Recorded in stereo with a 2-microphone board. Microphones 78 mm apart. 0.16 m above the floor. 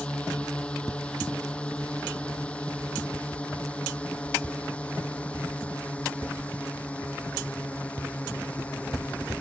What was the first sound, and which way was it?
A drone, 15° left (ahead or behind).